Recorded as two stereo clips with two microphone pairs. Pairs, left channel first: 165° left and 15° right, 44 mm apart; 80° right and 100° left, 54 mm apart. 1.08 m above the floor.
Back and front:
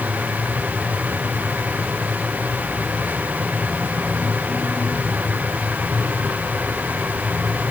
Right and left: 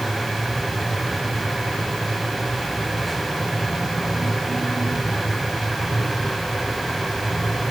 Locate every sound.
Only background noise.